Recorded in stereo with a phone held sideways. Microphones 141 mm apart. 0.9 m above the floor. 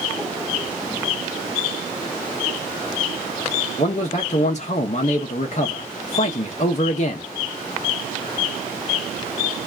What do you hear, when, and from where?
3.8 s a man speaking: 55° left (ahead or behind), 0.6 m